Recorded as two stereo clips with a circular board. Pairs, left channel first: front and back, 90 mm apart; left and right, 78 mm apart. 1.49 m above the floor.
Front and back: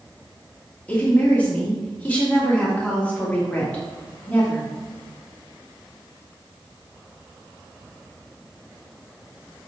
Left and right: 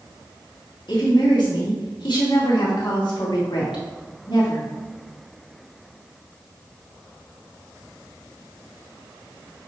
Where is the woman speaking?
75° left, 2.5 m.